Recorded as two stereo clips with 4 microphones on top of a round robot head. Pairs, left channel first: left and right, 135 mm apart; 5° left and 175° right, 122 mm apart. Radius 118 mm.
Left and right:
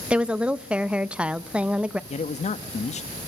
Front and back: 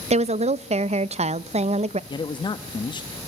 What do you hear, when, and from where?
0.1 s a woman speaking: 170° right, 0.6 m
2.1 s a man speaking: 55° left, 1.1 m